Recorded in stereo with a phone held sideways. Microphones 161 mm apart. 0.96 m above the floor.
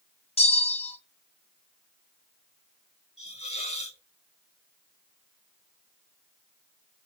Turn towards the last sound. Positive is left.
turn(degrees=40)  # may be behind; listen again after turning